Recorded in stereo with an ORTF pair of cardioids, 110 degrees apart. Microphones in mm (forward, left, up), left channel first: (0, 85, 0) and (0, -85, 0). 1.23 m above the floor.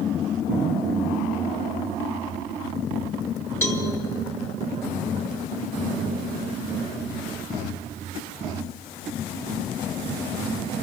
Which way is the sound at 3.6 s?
15° left.